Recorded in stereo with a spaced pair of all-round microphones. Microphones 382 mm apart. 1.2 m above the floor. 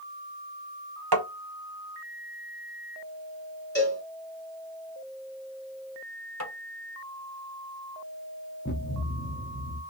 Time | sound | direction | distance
1.1 | tapping | 80° right | 0.8 m
3.8 | a cowbell | 30° left (ahead or behind) | 1.6 m
6.4 | tapping | 40° left (ahead or behind) | 1.3 m
8.7 | a thud | 30° left (ahead or behind) | 0.8 m